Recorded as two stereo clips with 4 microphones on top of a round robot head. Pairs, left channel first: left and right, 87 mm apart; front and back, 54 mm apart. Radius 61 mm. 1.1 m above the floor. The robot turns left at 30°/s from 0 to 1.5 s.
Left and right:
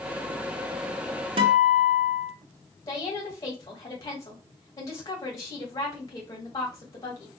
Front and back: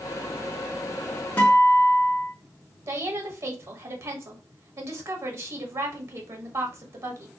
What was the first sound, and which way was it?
A guitar, 75° right.